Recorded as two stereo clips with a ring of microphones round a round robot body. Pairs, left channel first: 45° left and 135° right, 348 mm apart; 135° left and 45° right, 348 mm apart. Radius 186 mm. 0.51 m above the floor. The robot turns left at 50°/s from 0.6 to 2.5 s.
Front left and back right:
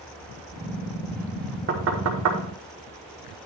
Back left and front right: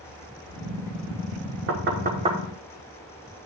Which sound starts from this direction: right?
Knocking, at 1.7 s.